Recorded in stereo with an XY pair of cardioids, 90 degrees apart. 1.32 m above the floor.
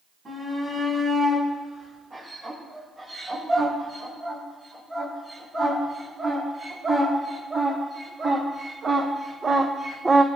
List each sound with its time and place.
0.2 s a shout: 45° right, 8.5 m; by 10.3 s 20° right, 0.6 m